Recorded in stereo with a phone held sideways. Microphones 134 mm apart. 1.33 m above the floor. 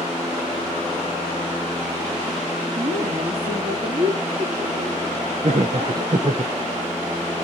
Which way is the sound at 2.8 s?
75° right (ahead or behind).